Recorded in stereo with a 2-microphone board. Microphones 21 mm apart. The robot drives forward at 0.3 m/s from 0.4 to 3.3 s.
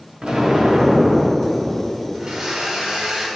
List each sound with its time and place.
0.2 s an explosion: 50° right (ahead or behind), 1.9 m; by 2.5 s 55° right (ahead or behind), 1.8 m
2.1 s a blender: 35° right (ahead or behind), 1.7 m; by 3.3 s 30° right (ahead or behind), 2 m